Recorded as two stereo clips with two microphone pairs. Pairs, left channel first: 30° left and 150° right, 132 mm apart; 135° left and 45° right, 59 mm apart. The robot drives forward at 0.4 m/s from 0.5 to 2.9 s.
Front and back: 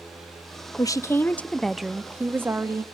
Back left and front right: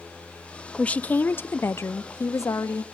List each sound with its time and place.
0.8 s a woman speaking: 75° left, 0.7 m; by 2.8 s 145° left, 1.0 m